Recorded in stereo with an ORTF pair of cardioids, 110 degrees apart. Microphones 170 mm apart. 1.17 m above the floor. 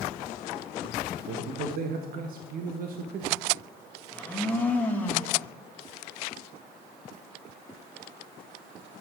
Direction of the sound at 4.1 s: 10° left.